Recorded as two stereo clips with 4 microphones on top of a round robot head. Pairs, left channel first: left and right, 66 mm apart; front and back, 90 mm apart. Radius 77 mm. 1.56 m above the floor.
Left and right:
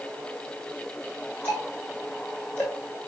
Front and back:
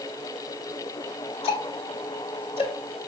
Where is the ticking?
10° left, 1.5 m.